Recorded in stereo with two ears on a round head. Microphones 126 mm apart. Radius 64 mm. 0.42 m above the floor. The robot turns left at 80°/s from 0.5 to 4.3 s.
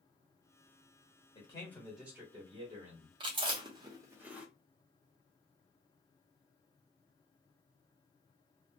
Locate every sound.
1.4 s a man speaking: 45° left, 1.3 m; by 3.1 s 95° right, 1.3 m
3.2 s chewing: 35° right (ahead or behind), 0.8 m; by 4.5 s 10° right (ahead or behind), 0.8 m